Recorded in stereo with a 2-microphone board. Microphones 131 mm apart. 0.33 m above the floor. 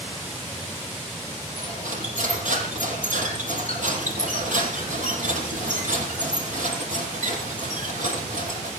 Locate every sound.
1.6 s cutlery clinking: 75° right (ahead or behind), 6.5 m